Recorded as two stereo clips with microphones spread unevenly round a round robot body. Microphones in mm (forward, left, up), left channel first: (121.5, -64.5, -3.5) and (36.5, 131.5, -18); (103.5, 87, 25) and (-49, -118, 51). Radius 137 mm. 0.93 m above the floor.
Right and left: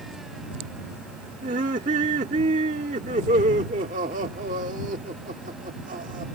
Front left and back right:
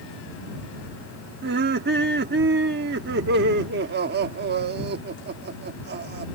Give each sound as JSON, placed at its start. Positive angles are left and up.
{"t": 1.4, "sound": "laughter", "azimuth_deg": 180}